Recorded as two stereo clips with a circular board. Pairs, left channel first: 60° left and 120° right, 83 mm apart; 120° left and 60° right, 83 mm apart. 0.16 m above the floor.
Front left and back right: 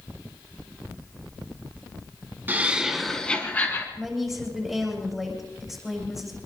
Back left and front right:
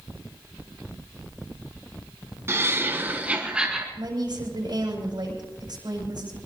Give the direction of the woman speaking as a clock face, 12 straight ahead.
1 o'clock.